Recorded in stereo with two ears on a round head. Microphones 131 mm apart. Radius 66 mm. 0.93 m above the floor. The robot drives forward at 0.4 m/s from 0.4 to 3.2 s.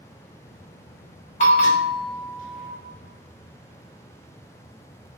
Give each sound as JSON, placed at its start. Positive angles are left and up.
{"t": 1.4, "sound": "a bell", "side_deg": 50, "distance_m": 0.9}